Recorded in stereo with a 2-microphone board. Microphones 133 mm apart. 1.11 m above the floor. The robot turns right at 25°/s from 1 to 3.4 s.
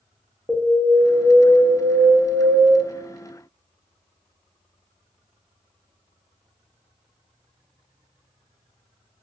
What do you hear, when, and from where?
0.5 s an alarm: 165° right, 0.7 m; by 2.8 s 120° right, 0.7 m